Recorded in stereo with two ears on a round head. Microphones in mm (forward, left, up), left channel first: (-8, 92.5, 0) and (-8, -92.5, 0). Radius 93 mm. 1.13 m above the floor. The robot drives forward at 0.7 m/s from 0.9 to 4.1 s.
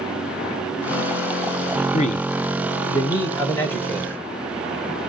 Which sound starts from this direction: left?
A man speaking, at 1.9 s.